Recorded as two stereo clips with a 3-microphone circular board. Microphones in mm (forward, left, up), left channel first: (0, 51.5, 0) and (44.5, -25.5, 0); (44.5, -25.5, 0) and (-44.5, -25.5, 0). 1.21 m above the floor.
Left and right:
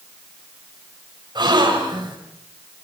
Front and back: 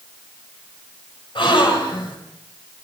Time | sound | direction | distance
1.4 | a gasp | 25° right | 5.5 m